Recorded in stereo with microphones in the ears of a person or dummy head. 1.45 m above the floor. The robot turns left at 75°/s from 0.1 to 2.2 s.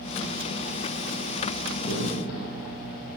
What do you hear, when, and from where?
1.7 s a crack: 25° left (ahead or behind), 9.5 m; by 2.9 s 65° left (ahead or behind), 9.5 m